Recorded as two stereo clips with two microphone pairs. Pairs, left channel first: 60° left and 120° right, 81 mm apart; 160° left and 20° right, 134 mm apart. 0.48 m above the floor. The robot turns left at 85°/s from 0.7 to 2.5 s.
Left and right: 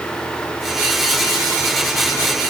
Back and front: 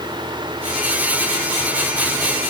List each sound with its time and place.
Only background noise.